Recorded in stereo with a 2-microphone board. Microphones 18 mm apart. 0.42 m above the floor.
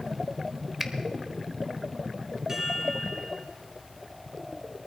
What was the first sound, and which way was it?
A finger snap, 20° right (ahead or behind).